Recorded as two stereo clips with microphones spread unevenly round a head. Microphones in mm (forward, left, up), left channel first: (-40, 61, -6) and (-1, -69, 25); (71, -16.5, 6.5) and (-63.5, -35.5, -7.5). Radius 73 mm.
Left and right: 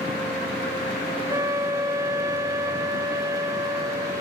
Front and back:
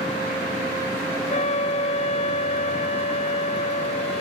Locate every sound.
1.3 s a flute: 5° left, 0.6 m